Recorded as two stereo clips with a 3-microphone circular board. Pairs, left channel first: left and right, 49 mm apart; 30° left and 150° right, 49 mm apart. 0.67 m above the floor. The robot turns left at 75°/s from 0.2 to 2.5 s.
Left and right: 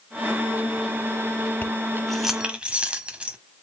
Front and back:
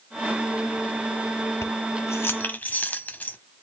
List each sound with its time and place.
1.6 s keys jangling: 40° left, 0.9 m; by 3.4 s 25° right, 0.9 m